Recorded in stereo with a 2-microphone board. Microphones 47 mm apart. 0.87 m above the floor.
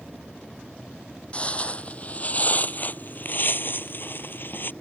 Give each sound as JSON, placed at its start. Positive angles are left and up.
{"t": 1.3, "sound": "footsteps", "side_deg": 25}